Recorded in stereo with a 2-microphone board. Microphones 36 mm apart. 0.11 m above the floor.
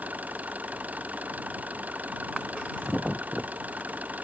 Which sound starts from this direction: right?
An engine running, at 0.0 s.